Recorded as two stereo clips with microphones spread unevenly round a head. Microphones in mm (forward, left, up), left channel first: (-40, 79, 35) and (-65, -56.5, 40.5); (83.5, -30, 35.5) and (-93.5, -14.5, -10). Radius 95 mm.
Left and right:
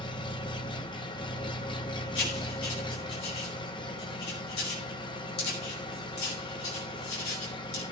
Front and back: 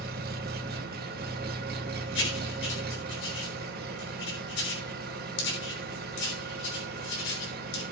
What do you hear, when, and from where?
0.0 s an engine running: 130° left, 0.9 m
2.1 s writing: 20° left, 3 m